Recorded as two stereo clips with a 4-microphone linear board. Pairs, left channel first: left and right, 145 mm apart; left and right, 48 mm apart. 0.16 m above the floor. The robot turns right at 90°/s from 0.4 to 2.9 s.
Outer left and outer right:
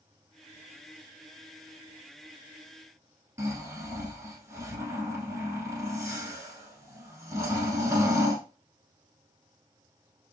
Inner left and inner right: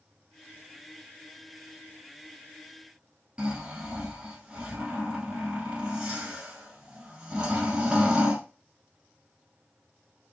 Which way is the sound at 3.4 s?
20° right (ahead or behind).